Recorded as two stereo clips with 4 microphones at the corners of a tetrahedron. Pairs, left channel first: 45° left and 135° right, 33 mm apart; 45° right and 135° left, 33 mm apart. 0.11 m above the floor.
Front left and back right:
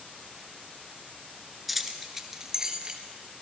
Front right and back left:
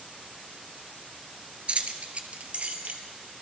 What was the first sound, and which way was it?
Keys jangling, 135° left.